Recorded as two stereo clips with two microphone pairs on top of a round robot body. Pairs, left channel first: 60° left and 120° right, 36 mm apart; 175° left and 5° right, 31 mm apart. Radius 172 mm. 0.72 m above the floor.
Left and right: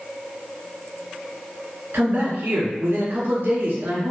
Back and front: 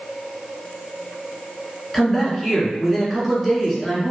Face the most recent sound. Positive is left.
turn(degrees=-110)